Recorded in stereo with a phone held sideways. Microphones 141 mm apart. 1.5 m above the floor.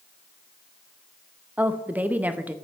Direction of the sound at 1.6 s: 10° right (ahead or behind).